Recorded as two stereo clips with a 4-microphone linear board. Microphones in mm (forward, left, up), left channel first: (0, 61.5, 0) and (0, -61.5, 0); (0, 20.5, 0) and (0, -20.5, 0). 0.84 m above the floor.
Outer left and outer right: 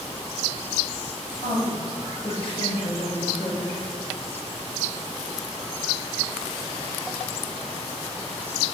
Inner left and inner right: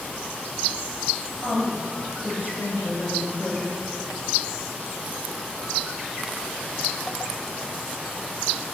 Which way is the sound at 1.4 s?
50° left (ahead or behind).